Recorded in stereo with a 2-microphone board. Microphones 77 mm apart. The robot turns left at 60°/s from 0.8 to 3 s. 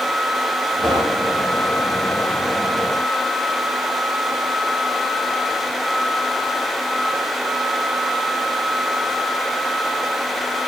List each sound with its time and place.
0.8 s knocking: centre (ahead or behind), 5 m; by 1.4 s 35° right (ahead or behind), 5 m